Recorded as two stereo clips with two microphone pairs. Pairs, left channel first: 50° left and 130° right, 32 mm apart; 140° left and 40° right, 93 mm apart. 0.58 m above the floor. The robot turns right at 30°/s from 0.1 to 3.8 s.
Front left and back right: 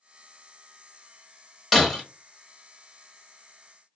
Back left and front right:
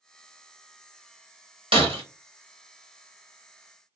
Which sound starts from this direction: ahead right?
Breaking glass, at 1.7 s.